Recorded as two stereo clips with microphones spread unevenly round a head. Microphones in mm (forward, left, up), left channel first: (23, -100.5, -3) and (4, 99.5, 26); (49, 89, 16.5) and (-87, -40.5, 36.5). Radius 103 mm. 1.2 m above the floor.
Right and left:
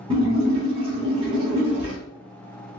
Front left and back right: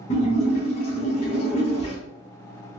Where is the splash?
85° left, 1.0 m.